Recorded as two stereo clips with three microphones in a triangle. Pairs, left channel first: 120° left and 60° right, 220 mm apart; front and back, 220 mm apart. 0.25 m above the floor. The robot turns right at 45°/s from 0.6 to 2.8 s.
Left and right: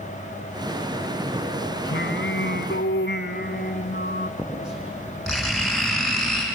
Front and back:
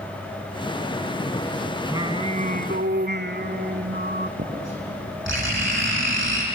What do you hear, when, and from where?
1.9 s singing: 105° left, 0.9 m; by 4.3 s 150° left, 0.9 m
4.4 s writing: 150° right, 8.5 m